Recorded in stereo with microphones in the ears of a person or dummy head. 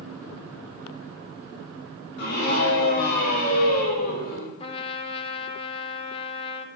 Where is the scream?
55° left (ahead or behind), 8.5 m; by 4.5 s 50° left (ahead or behind), 6 m.